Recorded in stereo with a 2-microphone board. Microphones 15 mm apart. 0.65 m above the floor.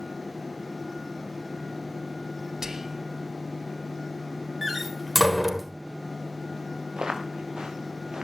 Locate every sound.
2.6 s whispering: 35° right (ahead or behind), 1.1 m
4.6 s a door slam: 10° right (ahead or behind), 1.5 m
7.0 s footsteps: 55° right (ahead or behind), 4 m